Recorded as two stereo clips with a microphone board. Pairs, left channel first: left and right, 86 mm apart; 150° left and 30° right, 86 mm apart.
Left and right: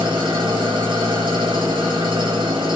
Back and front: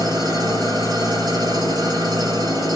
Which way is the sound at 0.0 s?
65° right.